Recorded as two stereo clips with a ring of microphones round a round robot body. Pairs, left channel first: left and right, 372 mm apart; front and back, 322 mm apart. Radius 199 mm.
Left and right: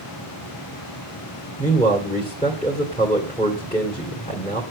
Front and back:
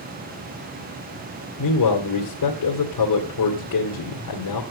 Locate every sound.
1.6 s a man speaking: 15° left, 2.5 m